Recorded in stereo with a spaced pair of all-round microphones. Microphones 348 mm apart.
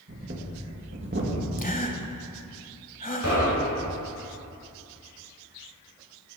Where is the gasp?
25° left (ahead or behind), 1.1 m.